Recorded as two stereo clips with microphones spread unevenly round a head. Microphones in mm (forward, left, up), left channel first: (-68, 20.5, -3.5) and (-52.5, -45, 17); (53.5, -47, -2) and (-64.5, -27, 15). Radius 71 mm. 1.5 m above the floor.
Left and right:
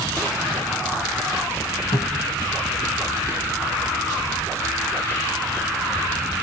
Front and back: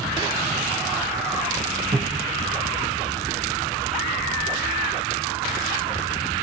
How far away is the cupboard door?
About 2 m.